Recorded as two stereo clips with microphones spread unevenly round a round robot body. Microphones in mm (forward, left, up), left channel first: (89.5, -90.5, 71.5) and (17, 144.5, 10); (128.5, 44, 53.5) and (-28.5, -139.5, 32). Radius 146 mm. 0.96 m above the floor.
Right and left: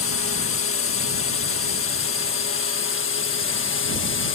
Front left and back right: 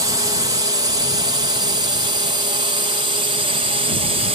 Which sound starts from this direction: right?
A drone, at 0.0 s.